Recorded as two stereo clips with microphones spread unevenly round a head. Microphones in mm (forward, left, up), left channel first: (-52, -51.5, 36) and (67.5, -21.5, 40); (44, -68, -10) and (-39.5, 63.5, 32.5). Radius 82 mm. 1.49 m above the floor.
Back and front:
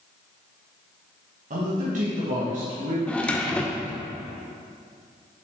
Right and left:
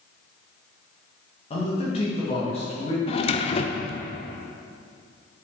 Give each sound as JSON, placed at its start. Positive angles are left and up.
{"t": 1.5, "sound": "a man speaking", "azimuth_deg": -5, "distance_m": 1.7}
{"t": 3.1, "sound": "a drawer", "azimuth_deg": -95, "distance_m": 0.6}